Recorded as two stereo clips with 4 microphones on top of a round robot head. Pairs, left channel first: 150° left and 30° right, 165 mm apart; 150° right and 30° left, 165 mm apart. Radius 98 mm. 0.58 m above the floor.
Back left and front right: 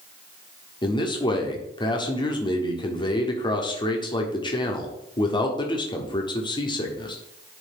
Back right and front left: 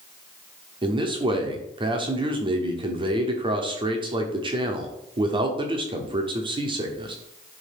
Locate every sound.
0.8 s a man speaking: 90° left, 1.2 m